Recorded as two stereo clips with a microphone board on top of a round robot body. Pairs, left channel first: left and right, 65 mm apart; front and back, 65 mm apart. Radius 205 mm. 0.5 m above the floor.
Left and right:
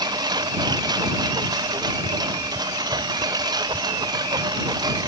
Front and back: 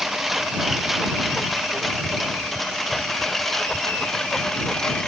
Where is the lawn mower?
95° right; by 5.1 s 80° right.